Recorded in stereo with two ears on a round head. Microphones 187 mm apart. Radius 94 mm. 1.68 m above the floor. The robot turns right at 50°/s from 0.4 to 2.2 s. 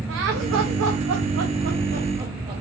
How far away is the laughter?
About 0.7 m.